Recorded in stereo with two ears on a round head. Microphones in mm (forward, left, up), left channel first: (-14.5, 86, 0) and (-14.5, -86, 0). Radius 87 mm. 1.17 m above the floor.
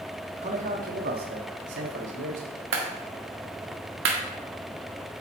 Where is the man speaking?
40° right (ahead or behind), 1.8 m; by 2.6 s 90° right, 2.5 m.